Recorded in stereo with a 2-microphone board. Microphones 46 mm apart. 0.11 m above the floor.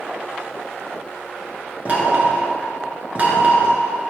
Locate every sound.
1.9 s knocking: 30° right (ahead or behind), 1.3 m